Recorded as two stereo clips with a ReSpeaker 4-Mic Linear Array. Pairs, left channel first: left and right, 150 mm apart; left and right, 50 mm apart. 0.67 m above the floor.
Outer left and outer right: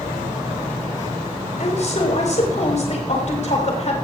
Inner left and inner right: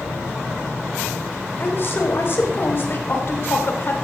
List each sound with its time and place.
1.6 s a woman speaking: 50° left (ahead or behind), 4 m